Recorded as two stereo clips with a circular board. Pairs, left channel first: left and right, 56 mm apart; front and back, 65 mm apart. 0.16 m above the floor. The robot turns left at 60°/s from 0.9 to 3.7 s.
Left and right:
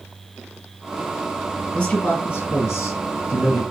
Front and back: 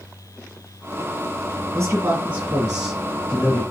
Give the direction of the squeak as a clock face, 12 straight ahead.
I don't hear a squeak.